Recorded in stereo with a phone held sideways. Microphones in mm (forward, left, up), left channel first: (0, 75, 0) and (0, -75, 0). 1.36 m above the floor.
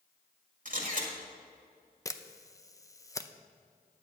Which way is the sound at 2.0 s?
20° left (ahead or behind).